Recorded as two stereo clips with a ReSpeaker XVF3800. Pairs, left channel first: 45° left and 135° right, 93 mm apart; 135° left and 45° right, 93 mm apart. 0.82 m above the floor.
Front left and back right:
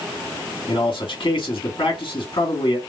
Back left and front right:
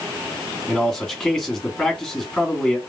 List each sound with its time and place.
0.7 s a man speaking: 60° left, 2 m